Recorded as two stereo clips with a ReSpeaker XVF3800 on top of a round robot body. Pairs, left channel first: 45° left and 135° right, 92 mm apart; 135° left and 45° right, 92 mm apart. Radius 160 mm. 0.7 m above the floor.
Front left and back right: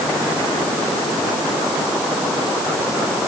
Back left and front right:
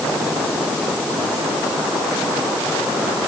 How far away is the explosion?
I don't hear an explosion.